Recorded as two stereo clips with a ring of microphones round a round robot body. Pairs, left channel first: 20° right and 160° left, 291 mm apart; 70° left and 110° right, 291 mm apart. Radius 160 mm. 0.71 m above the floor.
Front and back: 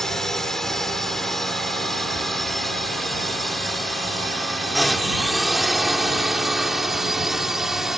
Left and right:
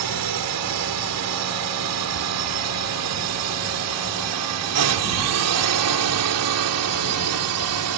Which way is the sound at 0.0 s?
110° right.